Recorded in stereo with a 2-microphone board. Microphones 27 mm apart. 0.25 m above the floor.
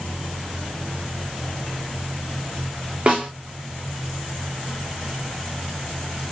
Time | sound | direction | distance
3.1 | a snare drum | 40° right (ahead or behind) | 3.5 m